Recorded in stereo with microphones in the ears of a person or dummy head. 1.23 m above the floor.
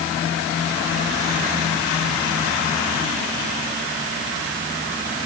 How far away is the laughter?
I don't hear laughter.